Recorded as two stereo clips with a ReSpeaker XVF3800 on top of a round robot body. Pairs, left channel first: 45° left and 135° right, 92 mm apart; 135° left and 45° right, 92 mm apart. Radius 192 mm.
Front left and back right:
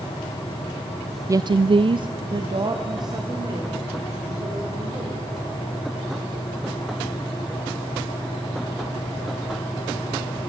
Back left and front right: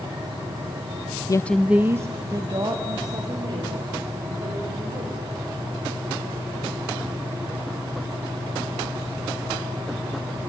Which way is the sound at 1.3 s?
175° left.